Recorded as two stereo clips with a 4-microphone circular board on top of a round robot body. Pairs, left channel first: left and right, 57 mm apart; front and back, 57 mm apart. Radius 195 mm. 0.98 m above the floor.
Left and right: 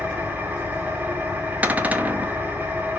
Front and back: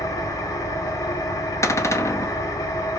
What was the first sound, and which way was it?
An engine running, 25° right.